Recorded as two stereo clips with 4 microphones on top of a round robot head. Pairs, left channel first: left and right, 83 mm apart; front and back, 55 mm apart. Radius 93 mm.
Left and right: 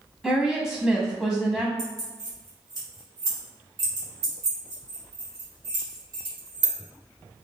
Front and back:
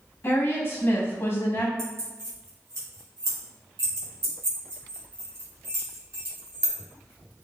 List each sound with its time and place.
0.2 s a woman speaking: straight ahead, 1.2 m
1.8 s keys jangling: 140° right, 1.6 m